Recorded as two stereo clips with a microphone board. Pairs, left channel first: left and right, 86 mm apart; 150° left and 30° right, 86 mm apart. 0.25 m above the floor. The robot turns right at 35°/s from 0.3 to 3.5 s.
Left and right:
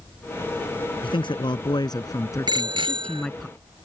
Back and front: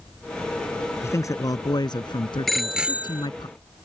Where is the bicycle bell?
120° right; by 3.3 s 95° right.